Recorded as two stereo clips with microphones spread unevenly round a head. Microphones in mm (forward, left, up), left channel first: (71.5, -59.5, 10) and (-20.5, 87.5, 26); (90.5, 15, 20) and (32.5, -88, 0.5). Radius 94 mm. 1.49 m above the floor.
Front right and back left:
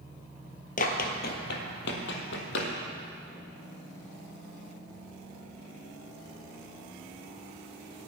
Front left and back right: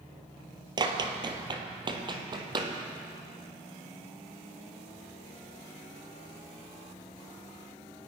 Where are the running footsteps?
80° right, 1.8 m; by 2.7 s 70° right, 3 m.